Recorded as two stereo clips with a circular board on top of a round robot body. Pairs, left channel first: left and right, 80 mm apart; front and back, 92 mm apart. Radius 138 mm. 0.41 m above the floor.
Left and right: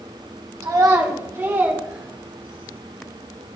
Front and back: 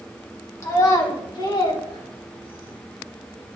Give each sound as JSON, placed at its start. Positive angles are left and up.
{"t": 0.6, "sound": "a child speaking", "azimuth_deg": -55, "distance_m": 2.5}